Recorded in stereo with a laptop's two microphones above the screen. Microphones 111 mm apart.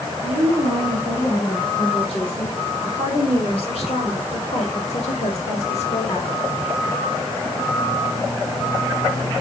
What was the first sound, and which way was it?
A woman speaking, 55° left (ahead or behind).